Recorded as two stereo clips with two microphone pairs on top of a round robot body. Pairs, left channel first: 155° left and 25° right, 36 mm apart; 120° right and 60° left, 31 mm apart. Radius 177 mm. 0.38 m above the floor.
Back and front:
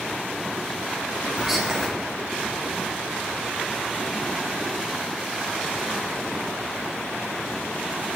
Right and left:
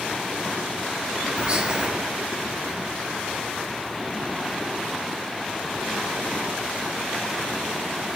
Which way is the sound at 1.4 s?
45° left.